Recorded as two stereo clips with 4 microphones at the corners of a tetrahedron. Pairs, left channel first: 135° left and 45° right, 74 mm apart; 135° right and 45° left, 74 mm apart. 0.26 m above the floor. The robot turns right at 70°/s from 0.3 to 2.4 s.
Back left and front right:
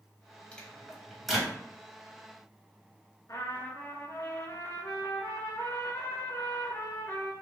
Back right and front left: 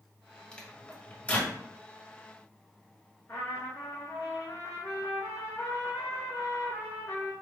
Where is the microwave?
Straight behind, 1.1 m; by 1.6 s 110° right, 1.1 m.